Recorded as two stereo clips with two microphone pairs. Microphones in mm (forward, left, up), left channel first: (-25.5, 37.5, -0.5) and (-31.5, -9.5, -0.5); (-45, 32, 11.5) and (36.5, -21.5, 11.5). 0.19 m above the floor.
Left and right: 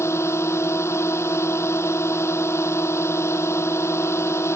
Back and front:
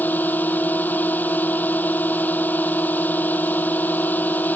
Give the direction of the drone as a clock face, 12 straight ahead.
10 o'clock.